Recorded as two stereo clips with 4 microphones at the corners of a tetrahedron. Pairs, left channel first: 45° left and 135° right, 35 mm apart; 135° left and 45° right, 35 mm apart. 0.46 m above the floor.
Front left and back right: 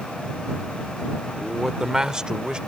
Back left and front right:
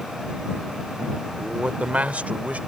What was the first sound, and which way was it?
A man speaking, 60° right.